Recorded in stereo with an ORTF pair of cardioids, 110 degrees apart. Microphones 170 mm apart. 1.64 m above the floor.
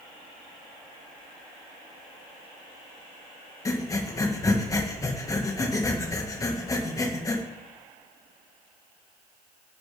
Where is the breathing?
20° left, 1.7 m.